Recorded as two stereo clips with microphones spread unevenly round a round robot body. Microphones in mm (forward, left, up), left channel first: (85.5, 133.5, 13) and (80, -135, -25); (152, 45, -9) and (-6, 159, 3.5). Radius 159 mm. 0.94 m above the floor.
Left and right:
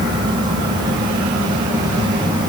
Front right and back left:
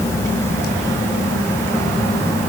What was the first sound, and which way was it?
Only background noise.